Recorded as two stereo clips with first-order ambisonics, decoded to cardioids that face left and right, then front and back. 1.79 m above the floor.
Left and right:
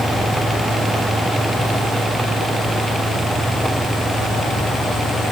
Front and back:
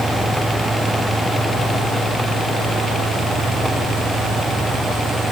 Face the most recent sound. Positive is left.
No sound to turn to.